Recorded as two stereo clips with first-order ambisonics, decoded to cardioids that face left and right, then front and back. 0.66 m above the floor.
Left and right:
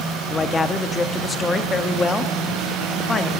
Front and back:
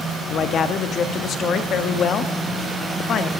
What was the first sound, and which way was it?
A man speaking, 25° left.